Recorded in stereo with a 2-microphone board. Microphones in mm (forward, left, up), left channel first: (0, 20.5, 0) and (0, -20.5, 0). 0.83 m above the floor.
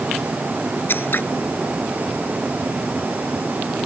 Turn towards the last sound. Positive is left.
turn(degrees=55)  # may be behind; listen again after turning